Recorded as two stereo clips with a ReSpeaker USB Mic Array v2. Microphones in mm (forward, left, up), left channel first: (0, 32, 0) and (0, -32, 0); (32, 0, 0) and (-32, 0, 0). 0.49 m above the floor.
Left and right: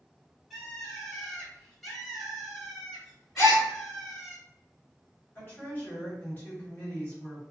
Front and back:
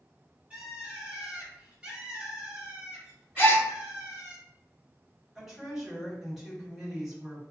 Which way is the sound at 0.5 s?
170° left.